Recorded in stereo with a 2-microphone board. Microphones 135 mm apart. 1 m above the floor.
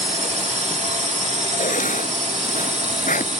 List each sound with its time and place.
0.0 s a drone: 60° right (ahead or behind)
1.6 s writing: 70° left (ahead or behind)